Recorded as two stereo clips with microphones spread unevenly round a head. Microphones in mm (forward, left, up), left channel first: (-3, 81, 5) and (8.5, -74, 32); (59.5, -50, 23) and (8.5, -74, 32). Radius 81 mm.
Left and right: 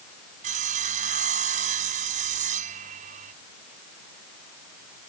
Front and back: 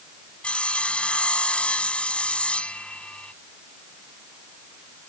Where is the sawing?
45° right.